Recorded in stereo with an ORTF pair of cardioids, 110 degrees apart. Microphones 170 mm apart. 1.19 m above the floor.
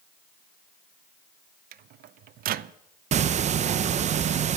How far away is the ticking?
About 0.6 m.